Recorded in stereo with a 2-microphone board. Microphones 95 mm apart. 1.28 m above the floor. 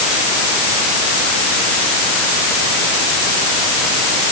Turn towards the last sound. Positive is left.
No sound to turn to.